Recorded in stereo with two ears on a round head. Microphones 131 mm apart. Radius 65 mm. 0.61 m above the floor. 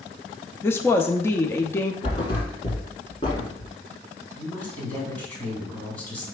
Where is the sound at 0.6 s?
15° left (ahead or behind), 0.5 m.